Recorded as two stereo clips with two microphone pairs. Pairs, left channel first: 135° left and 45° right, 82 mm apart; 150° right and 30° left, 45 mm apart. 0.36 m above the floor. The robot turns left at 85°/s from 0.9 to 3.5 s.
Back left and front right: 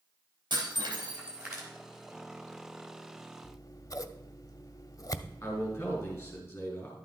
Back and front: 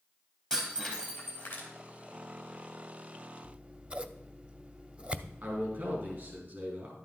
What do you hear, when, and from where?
0.5 s breaking glass: 75° right, 4 m; by 1.7 s 140° right, 4 m
3.4 s scissors: 100° left, 0.6 m; by 6.4 s 95° left, 0.6 m
5.4 s a man speaking: 70° left, 4.5 m